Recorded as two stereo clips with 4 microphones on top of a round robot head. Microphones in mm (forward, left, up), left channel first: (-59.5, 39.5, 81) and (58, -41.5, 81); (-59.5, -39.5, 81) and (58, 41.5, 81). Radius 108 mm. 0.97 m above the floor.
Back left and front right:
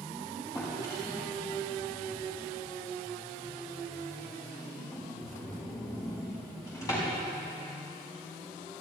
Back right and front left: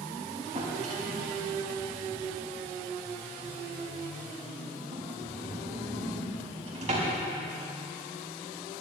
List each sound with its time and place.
0.6 s a drawer: 80° left, 5 m